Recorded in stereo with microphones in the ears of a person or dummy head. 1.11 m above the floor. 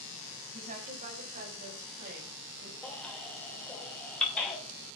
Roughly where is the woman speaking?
Right.